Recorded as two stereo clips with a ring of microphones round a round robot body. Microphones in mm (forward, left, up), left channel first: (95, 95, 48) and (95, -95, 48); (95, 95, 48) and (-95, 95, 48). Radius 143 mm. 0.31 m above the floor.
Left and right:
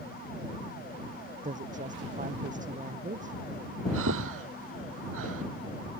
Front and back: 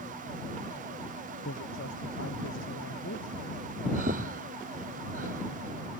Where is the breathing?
120° right.